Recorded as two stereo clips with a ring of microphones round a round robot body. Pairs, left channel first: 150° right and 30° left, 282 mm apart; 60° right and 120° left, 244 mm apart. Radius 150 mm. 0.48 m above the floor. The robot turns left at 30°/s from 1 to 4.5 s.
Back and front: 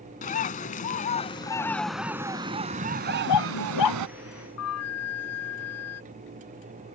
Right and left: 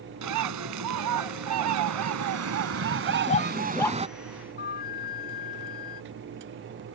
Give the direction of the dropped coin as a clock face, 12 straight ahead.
No dropped coin in this recording.